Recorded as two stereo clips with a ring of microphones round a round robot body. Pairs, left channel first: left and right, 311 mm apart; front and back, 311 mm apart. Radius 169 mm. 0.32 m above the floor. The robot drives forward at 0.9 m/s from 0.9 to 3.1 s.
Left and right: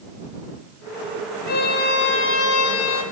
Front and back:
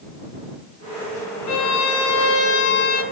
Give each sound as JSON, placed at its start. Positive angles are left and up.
{"t": 1.5, "sound": "a violin", "azimuth_deg": 30, "distance_m": 2.5}